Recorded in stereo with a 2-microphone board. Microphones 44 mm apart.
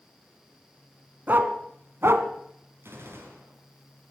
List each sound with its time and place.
1.3 s a dog barking: 50° right (ahead or behind), 1.5 m; by 2.3 s 65° right (ahead or behind), 1.4 m
2.8 s a gunshot: 75° right (ahead or behind), 5 m